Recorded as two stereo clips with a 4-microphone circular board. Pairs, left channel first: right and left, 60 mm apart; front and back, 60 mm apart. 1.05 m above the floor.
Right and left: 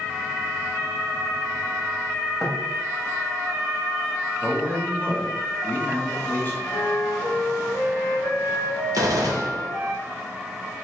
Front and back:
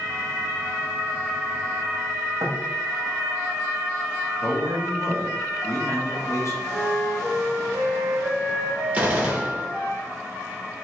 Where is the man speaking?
30° right, 1.1 m.